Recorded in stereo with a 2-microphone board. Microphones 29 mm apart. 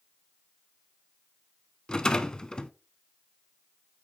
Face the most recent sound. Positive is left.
turn(degrees=25)  # may be behind; listen again after turning